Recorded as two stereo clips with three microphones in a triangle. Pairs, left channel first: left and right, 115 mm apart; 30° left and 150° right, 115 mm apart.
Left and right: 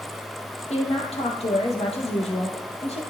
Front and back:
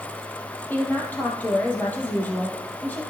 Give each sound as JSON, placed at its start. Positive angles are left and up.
{"t": 0.7, "sound": "a woman speaking", "azimuth_deg": 105, "distance_m": 2.5}